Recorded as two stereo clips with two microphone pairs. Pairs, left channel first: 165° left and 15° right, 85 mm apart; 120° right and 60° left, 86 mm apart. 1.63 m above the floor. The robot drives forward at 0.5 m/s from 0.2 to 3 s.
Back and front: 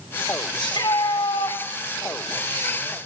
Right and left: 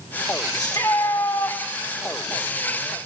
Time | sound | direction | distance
0.6 | a shout | 165° right | 4 m